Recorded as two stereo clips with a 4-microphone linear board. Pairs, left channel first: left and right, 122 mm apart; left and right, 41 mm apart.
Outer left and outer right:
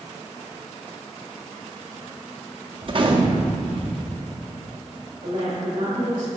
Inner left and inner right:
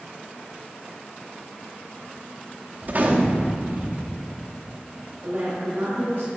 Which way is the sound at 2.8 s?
45° right (ahead or behind).